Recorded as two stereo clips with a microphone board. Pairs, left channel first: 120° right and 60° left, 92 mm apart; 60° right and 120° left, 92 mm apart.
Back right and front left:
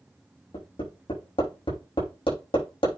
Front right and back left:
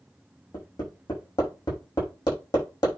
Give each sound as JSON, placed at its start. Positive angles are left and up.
{"t": 0.5, "sound": "hammering", "azimuth_deg": -105, "distance_m": 6.0}